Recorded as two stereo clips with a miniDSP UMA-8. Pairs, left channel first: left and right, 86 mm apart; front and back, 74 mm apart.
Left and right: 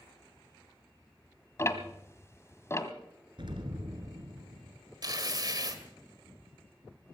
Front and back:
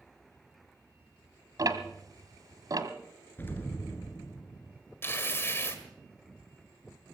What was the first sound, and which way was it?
Ticking, 150° left.